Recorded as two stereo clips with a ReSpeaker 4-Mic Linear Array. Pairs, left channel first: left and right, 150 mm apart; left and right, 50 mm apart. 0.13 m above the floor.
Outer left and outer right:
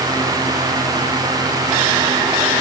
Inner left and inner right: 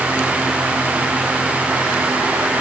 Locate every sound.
Only background noise.